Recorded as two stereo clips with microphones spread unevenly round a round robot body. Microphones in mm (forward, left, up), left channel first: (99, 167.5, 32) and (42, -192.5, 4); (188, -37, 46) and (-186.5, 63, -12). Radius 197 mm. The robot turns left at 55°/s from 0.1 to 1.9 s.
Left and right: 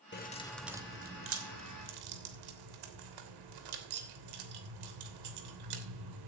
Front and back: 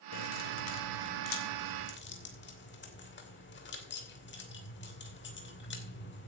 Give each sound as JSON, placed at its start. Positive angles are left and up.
{"t": 0.1, "sound": "keys jangling", "azimuth_deg": 20, "distance_m": 3.0}